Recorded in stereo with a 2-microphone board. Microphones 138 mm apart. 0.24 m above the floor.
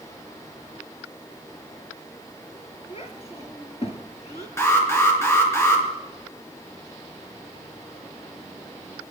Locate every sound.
2.9 s a child speaking: 50° left (ahead or behind), 2.5 m
4.6 s an alarm: 20° left (ahead or behind), 3.5 m